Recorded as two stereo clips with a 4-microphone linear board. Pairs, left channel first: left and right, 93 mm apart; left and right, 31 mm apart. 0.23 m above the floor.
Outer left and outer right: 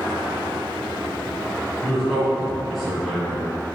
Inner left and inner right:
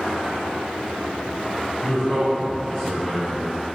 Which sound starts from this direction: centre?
A man speaking, at 1.8 s.